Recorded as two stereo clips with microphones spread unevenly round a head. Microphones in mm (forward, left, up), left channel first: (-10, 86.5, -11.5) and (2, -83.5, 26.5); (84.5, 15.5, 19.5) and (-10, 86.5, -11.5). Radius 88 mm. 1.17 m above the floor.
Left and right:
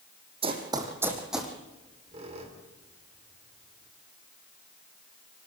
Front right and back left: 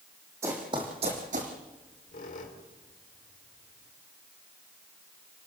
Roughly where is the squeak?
Ahead right.